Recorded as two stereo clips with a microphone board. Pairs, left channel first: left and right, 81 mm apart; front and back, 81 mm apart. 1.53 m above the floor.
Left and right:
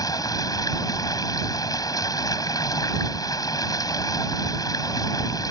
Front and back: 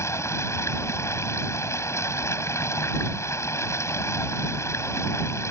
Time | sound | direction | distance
0.0 | running water | 50° left | ?